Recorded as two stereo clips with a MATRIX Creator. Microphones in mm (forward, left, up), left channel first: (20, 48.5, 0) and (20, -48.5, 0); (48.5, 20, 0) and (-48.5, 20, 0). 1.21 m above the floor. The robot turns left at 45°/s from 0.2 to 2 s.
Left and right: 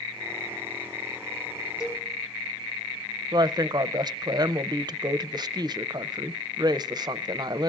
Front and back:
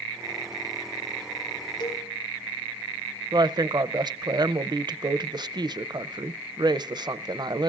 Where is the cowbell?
35° left, 3 m; by 2.1 s 30° left, 3 m.